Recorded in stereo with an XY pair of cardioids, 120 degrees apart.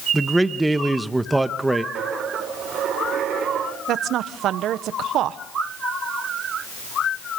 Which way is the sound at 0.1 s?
10° right.